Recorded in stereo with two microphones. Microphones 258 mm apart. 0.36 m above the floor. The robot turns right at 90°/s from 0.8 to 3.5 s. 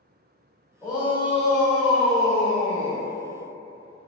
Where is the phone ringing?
I don't hear a phone ringing.